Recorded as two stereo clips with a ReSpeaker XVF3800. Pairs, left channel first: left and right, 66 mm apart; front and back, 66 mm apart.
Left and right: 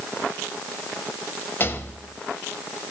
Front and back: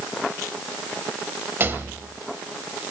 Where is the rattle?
135° left, 0.6 m.